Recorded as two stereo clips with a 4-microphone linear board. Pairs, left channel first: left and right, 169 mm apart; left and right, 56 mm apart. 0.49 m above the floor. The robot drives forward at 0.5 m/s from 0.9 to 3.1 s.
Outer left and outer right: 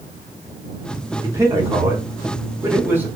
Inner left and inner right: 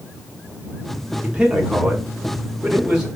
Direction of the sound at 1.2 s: 20° right (ahead or behind).